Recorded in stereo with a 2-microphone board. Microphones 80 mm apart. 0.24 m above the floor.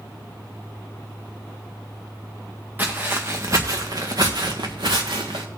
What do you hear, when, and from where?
2.8 s footsteps: 25° right (ahead or behind), 1.7 m; by 5.5 s 80° right, 1.9 m